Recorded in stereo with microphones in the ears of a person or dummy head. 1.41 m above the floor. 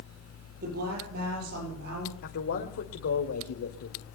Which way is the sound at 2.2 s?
70° left (ahead or behind).